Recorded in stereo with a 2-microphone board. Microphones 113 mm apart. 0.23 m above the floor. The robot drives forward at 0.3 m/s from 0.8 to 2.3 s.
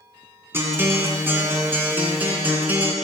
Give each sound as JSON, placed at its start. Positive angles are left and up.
{"t": 0.5, "sound": "a guitar", "side_deg": -20, "distance_m": 1.6}